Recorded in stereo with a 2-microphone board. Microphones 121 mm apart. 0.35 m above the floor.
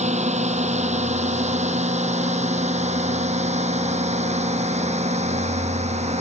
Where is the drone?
75° right (ahead or behind); by 6.2 s 70° right (ahead or behind).